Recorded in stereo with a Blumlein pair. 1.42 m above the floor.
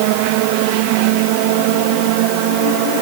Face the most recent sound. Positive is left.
No sound to turn to.